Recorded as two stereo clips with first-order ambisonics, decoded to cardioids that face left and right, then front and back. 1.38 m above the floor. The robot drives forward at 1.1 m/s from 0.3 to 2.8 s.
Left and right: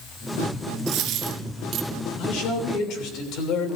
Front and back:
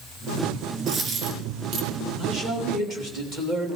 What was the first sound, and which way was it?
A dropped coin, 115° right.